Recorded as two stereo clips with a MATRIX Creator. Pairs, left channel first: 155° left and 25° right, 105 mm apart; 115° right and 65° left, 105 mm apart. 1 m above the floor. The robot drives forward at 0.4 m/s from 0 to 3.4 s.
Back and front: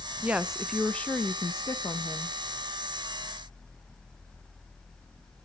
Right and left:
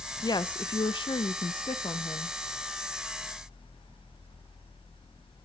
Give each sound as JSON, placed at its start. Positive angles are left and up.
{"t": 0.2, "sound": "a woman speaking", "azimuth_deg": -90, "distance_m": 0.5}